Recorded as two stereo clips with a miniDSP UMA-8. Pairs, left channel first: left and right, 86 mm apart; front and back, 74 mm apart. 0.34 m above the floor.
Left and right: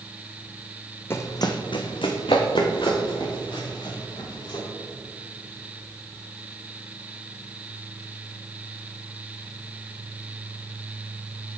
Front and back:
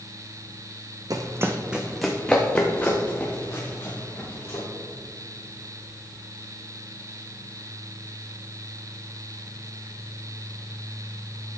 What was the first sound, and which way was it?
Running footsteps, 150° left.